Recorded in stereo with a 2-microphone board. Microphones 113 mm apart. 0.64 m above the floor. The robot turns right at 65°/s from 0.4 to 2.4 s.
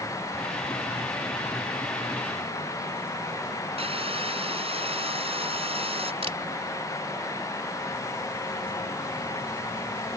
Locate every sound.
3.8 s sawing: 60° right (ahead or behind)
6.2 s a camera shutter: 60° right (ahead or behind)